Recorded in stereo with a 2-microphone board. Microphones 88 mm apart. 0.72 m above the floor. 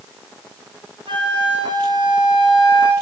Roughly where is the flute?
Right.